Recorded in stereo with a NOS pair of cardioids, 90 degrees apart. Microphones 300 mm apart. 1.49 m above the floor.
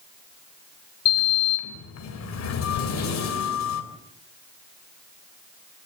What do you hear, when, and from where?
1.1 s a sliding door: 60° left, 3.5 m